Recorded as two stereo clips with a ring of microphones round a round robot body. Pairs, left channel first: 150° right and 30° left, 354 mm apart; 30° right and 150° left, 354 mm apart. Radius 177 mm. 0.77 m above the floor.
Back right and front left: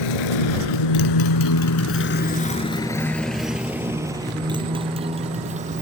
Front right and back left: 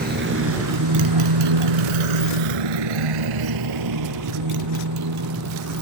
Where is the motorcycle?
145° right; by 5.8 s 100° left.